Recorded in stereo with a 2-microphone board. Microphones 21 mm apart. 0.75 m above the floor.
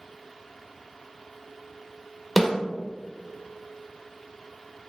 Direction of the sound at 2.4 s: 5° right (ahead or behind).